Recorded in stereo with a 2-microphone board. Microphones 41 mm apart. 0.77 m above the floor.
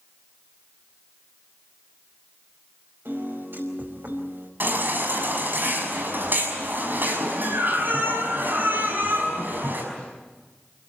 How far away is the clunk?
I don't hear a clunk.